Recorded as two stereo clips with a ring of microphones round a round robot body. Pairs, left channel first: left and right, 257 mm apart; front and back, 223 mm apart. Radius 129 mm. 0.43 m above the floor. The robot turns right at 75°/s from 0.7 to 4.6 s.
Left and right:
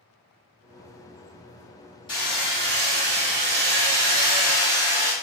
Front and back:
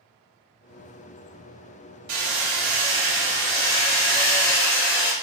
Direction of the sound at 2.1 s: 165° left.